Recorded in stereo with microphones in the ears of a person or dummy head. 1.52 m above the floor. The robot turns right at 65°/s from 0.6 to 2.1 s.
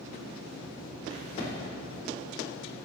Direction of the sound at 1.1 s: 55° left (ahead or behind).